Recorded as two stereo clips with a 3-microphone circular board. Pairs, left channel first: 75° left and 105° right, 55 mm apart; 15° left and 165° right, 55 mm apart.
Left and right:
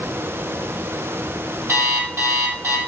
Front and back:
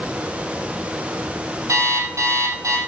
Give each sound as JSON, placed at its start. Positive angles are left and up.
{"t": 1.7, "sound": "an alarm clock", "azimuth_deg": -150, "distance_m": 3.0}